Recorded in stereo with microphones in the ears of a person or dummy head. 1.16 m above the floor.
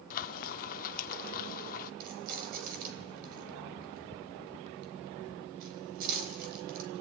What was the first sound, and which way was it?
Frying, 50° left (ahead or behind).